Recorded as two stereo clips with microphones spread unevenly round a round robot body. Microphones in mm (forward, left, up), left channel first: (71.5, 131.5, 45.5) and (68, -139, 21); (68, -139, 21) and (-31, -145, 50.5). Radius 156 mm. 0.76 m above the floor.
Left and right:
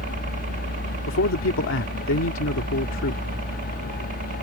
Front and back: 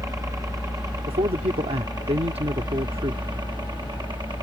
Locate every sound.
0.0 s a helicopter: 125° right; by 4.4 s 135° right
1.1 s a man speaking: 135° left